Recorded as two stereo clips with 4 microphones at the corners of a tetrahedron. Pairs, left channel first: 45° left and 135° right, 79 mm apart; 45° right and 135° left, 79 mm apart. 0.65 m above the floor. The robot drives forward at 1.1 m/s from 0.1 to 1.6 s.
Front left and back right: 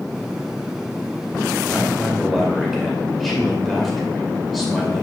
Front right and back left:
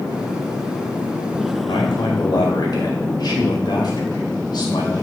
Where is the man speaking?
45° right, 2.5 m.